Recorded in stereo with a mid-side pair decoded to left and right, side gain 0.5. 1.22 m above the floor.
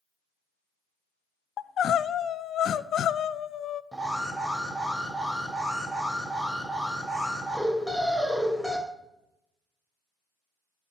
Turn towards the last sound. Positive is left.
turn(degrees=-5)